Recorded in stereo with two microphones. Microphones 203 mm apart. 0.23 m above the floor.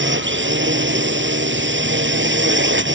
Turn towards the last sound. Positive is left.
turn(degrees=-75)  # may be behind; listen again after turning